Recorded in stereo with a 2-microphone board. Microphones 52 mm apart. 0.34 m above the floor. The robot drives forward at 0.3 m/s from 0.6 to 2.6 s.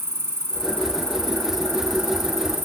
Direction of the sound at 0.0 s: 55° right (ahead or behind).